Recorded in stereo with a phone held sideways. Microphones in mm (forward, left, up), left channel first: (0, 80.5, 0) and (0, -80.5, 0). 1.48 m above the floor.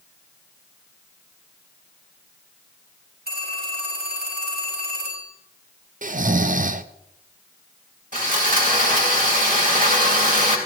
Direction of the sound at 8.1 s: 60° right (ahead or behind).